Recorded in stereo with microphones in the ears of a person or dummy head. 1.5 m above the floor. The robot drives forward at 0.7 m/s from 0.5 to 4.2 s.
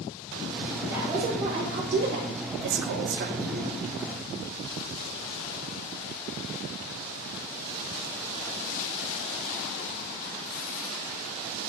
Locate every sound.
0.8 s a woman speaking: 20° right (ahead or behind), 1.3 m; by 3.7 s 30° right (ahead or behind), 0.9 m